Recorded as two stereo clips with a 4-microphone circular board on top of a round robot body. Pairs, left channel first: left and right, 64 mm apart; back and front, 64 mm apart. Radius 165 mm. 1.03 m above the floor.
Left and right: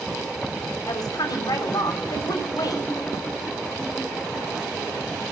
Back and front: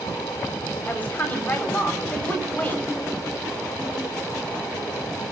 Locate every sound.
0.9 s a woman speaking: 115° left, 4.5 m